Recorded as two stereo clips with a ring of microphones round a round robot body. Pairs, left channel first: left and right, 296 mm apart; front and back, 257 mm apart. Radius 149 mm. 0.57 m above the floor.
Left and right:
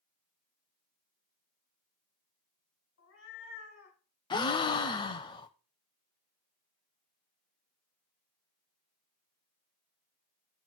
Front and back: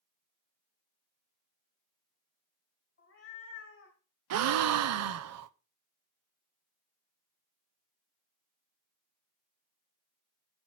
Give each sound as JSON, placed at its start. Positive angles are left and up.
{"t": 3.0, "sound": "a cat meowing", "azimuth_deg": 35, "distance_m": 3.0}
{"t": 4.3, "sound": "a gasp", "azimuth_deg": 165, "distance_m": 0.5}